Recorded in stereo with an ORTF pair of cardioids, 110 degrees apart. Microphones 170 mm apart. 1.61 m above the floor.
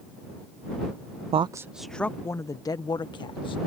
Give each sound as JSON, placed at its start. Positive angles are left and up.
{"t": 1.3, "sound": "a woman speaking", "azimuth_deg": -40}